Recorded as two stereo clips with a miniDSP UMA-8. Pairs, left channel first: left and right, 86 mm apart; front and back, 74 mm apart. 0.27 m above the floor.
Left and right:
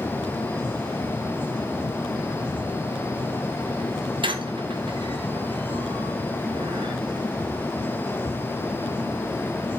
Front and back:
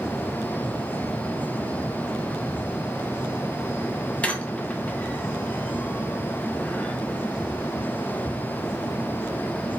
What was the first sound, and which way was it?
A squeak, 75° right.